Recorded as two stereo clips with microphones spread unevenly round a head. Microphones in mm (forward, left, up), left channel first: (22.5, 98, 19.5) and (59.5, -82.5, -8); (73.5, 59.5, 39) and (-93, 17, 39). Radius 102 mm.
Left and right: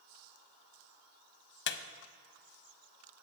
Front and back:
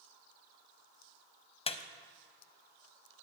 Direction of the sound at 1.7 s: 70° left.